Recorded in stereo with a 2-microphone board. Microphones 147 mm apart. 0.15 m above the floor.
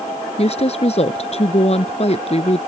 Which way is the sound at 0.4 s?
45° left (ahead or behind).